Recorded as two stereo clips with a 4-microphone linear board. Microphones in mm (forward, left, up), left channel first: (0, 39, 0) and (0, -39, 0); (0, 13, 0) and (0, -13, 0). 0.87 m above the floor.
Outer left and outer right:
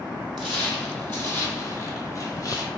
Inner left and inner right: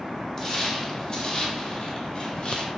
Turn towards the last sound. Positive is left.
turn(degrees=40)  # may be behind; listen again after turning